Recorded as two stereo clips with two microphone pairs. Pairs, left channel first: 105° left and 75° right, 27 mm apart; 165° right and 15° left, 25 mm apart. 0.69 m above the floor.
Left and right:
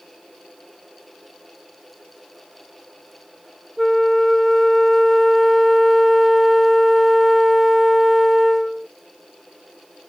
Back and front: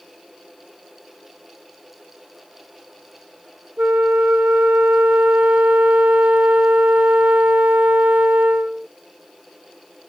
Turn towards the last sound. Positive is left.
turn(degrees=20)